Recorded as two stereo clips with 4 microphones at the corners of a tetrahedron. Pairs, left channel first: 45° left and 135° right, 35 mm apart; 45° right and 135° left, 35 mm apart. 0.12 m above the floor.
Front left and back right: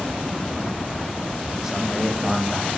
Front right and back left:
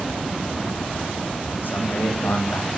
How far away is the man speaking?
About 6 m.